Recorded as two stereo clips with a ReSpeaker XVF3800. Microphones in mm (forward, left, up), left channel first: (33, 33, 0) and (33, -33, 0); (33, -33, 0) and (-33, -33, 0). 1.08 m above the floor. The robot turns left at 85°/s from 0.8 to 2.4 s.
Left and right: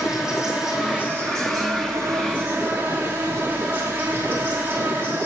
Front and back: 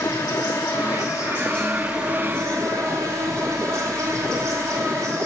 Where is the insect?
10° right, 2.5 m; by 5.2 s 145° right, 2.5 m.